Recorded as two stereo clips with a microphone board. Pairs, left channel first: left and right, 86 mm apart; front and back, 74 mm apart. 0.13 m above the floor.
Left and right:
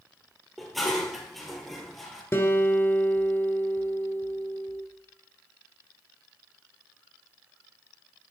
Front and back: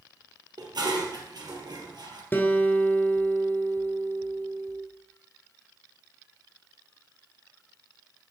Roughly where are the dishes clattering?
Behind.